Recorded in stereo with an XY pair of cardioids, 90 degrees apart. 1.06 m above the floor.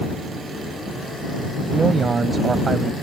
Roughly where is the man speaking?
Ahead right.